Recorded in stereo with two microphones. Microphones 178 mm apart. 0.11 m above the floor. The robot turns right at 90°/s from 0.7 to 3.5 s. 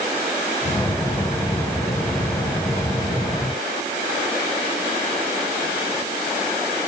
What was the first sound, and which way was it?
Only background noise.